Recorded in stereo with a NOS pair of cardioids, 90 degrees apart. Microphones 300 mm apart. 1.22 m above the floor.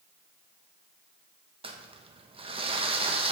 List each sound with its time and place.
1.6 s crumpling: 20° right, 1.1 m